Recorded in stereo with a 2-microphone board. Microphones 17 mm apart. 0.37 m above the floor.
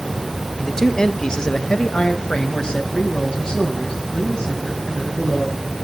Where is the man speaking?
30° left (ahead or behind), 1.2 m; by 5.6 s 50° left (ahead or behind), 4.5 m.